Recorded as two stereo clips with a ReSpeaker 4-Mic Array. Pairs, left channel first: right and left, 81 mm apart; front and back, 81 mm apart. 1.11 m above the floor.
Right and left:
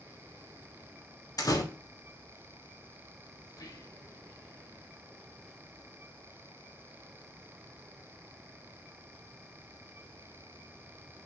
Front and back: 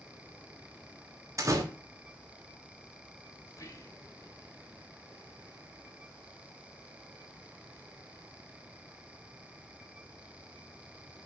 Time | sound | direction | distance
1.4 | a door slam | 130° right | 1.3 m
3.5 | whispering | 50° right | 1.2 m